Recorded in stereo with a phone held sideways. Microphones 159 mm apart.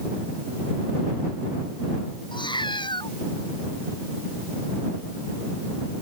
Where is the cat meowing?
30° left (ahead or behind).